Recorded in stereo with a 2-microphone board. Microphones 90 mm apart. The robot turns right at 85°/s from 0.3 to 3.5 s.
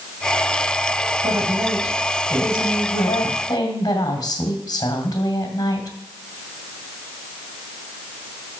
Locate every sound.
1.2 s a woman speaking: 65° right, 2 m; by 6.0 s 125° left, 2 m